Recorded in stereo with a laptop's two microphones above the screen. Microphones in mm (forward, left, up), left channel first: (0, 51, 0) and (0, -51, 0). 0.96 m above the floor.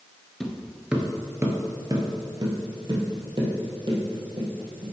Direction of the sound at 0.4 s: 5° left (ahead or behind).